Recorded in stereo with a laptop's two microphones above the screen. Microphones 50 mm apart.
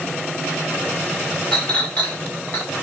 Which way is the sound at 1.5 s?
30° left (ahead or behind).